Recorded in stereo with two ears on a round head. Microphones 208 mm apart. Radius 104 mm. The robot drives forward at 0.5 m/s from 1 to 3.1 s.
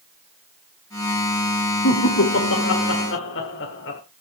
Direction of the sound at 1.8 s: 60° left (ahead or behind).